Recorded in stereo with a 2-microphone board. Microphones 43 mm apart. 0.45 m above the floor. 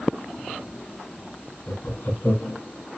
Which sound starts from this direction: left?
Laughter, at 1.7 s.